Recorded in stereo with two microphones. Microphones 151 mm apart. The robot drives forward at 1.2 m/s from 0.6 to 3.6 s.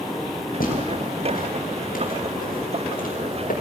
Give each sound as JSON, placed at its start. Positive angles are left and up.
{"t": 0.6, "sound": "footsteps", "side_deg": 75, "distance_m": 8.0}